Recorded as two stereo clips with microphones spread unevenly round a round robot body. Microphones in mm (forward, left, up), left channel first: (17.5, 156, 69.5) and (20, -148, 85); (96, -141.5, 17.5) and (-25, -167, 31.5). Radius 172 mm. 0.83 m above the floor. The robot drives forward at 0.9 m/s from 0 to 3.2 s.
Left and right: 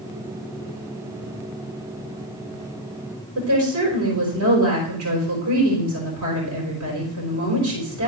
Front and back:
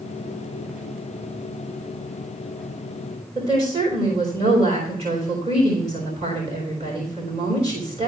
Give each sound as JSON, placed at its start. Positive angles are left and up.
{"t": 3.4, "sound": "a woman speaking", "azimuth_deg": -125, "distance_m": 4.0}